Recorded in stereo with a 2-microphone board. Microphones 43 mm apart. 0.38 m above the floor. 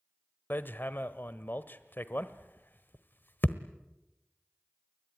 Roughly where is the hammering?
Left.